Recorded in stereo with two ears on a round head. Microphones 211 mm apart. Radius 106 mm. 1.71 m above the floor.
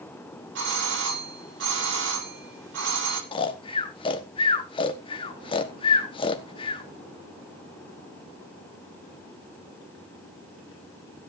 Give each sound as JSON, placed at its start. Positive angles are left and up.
{"t": 0.6, "sound": "a doorbell", "side_deg": -55, "distance_m": 3.0}
{"t": 3.3, "sound": "snoring", "side_deg": 25, "distance_m": 1.4}